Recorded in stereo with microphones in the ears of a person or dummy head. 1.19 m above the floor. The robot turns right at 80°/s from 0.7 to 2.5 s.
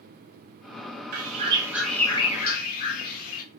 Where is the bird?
65° right, 0.6 m; by 3.4 s 45° left, 0.6 m.